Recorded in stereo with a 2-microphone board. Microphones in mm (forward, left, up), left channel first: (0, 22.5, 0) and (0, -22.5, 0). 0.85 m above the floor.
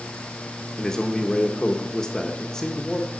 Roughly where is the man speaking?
Centre.